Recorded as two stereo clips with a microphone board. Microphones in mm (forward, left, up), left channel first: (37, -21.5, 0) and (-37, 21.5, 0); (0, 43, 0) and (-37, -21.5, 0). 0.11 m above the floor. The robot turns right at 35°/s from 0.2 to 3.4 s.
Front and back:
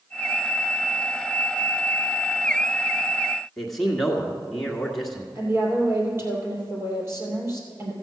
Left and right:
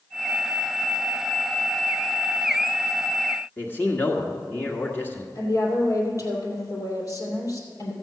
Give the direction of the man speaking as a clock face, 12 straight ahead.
10 o'clock.